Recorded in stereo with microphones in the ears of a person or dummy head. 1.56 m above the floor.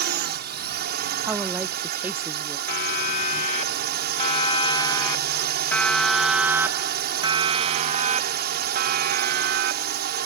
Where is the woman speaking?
5° right (ahead or behind).